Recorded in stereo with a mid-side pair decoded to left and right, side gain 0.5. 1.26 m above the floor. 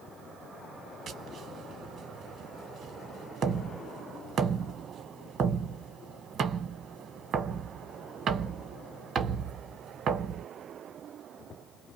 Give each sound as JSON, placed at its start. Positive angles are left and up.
{"t": 1.1, "sound": "tapping", "azimuth_deg": -55, "distance_m": 0.9}